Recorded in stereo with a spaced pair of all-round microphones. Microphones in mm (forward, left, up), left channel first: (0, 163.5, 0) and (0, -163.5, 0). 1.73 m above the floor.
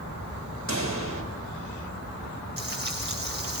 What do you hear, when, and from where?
0.7 s a pop: 60° right (ahead or behind), 6.5 m
2.6 s frying: 30° right (ahead or behind), 8.5 m